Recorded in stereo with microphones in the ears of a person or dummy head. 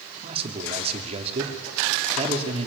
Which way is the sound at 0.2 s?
35° right (ahead or behind).